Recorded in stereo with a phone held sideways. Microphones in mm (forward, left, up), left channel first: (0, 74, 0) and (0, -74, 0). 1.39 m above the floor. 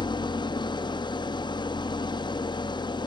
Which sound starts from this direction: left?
An engine running, at 0.0 s.